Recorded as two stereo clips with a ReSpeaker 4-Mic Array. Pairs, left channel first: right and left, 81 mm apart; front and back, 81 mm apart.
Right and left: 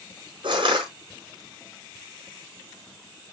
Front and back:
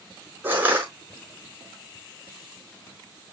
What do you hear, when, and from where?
0.4 s crushing: 110° left, 5.5 m